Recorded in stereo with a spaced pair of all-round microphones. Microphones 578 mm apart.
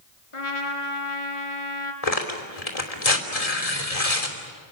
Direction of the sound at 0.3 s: 60° left (ahead or behind).